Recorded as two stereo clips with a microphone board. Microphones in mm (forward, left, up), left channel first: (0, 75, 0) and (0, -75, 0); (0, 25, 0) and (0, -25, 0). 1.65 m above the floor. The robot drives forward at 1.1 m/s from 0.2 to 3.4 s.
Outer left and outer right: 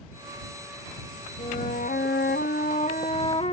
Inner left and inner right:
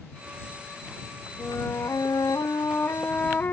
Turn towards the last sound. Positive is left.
turn(degrees=40)  # may be behind; listen again after turning